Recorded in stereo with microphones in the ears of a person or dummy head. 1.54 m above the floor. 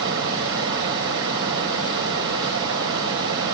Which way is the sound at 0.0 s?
70° right (ahead or behind).